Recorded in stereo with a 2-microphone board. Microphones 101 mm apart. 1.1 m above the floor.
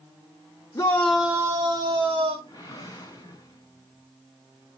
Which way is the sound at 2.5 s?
35° left (ahead or behind).